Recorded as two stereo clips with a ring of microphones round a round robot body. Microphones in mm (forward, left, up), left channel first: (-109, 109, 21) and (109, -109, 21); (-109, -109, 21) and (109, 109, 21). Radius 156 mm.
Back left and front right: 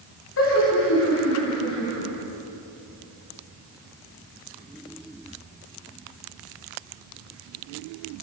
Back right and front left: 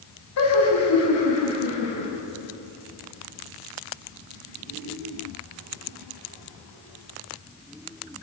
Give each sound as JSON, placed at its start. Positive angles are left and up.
{"t": 0.4, "sound": "laughter", "azimuth_deg": -175, "distance_m": 5.5}